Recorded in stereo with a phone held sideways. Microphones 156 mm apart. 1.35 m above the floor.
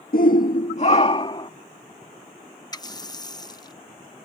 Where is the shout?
70° left (ahead or behind); by 1.5 s 30° left (ahead or behind).